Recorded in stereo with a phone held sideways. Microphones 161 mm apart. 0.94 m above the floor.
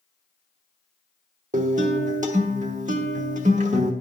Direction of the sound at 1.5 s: 50° right (ahead or behind).